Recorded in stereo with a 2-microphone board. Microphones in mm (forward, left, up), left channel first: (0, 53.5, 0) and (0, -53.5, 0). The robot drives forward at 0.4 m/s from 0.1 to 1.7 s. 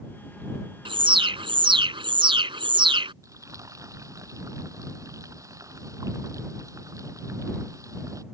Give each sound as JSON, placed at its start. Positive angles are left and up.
{"t": 0.8, "sound": "an alarm", "side_deg": -55}
{"t": 3.2, "sound": "frying", "side_deg": -30}